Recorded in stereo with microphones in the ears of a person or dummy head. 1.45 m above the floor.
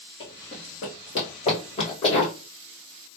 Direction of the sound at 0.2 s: 15° left (ahead or behind).